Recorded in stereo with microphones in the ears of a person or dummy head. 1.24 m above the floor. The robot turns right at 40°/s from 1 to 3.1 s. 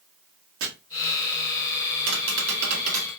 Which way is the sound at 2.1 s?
80° right.